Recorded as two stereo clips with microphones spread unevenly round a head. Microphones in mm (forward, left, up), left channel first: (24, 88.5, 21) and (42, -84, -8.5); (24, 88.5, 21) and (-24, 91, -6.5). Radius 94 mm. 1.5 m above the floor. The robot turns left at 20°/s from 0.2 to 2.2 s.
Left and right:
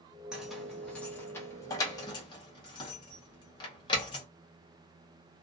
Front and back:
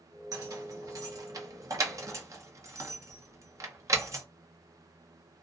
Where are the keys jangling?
Straight behind, 0.7 m; by 4.2 s 145° left, 0.7 m.